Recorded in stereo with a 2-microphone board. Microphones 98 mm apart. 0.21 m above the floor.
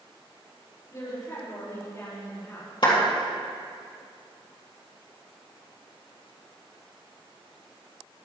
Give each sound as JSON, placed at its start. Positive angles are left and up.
{"t": 0.9, "sound": "a woman speaking", "side_deg": 35, "distance_m": 5.0}
{"t": 2.8, "sound": "a clap", "side_deg": 55, "distance_m": 3.5}